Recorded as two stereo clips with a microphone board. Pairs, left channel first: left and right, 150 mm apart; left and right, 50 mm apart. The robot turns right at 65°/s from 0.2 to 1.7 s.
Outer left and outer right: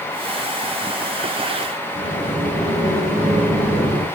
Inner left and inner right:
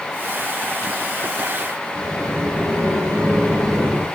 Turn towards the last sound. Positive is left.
turn(degrees=-80)